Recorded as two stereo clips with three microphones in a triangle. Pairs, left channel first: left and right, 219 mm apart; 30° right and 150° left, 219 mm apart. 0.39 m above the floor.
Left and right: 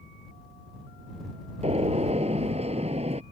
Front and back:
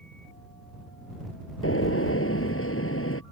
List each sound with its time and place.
1.6 s a gunshot: 30° right